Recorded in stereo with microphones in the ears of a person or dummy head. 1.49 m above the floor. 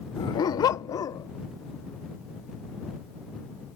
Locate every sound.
0.2 s a dog barking: 20° left (ahead or behind)